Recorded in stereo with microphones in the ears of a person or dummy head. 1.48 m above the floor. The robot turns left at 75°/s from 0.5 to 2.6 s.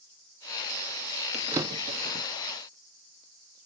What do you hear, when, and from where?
1.3 s a drawer: centre (ahead or behind), 1.4 m; by 2.2 s 60° right (ahead or behind), 1.4 m